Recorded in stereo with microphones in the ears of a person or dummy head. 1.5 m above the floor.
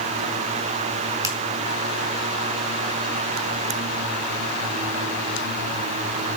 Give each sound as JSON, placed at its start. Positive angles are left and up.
{"t": 1.2, "sound": "a finger snap", "side_deg": -15, "distance_m": 1.8}